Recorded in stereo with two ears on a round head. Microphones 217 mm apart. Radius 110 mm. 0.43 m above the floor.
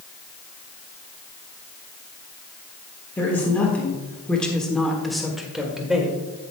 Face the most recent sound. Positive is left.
turn(degrees=-5)  # may be behind; listen again after turning